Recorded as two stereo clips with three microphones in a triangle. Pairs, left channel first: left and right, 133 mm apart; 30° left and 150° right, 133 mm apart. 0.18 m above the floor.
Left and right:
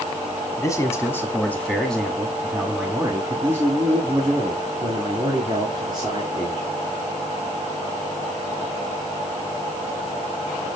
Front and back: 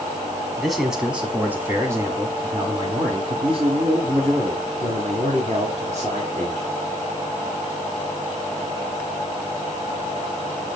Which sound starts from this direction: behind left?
A man speaking, at 0.6 s.